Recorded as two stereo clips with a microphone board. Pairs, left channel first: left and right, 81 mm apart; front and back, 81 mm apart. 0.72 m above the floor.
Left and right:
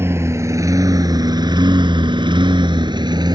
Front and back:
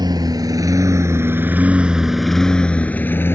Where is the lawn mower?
150° right; by 3.4 s 60° right.